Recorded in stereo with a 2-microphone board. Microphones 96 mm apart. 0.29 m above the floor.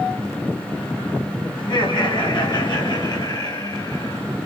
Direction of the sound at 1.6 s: 60° left (ahead or behind).